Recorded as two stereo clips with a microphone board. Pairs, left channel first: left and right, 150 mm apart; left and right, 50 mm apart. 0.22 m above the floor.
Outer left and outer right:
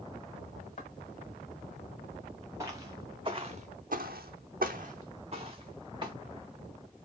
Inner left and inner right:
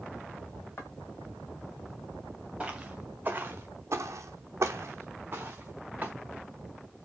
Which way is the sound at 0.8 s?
50° left (ahead or behind).